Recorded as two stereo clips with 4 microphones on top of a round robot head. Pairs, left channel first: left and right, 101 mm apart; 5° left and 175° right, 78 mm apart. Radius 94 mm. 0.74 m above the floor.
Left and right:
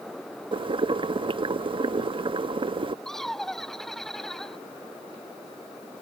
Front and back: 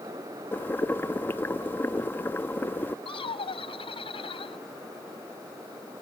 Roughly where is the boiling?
Ahead right.